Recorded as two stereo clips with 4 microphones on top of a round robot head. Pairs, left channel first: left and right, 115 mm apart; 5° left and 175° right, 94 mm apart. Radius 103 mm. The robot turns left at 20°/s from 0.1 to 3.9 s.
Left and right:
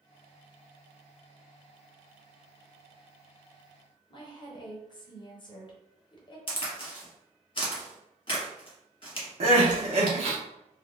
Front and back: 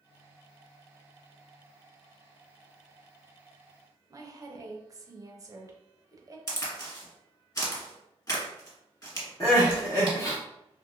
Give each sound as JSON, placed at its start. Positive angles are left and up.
{"t": 4.1, "sound": "a woman speaking", "azimuth_deg": 135, "distance_m": 0.8}
{"t": 6.5, "sound": "a crack", "azimuth_deg": 55, "distance_m": 1.5}
{"t": 9.4, "sound": "crying", "azimuth_deg": -55, "distance_m": 0.8}